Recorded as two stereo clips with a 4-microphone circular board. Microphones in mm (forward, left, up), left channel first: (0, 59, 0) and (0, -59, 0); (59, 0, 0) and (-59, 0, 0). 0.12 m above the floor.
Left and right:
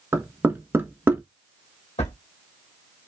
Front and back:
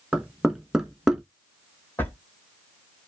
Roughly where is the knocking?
Right.